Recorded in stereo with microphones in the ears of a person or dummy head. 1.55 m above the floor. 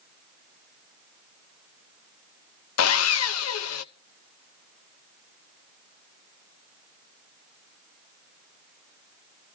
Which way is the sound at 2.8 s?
85° left.